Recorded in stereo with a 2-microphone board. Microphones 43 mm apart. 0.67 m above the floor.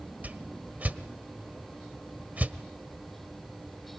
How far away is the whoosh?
About 1.1 m.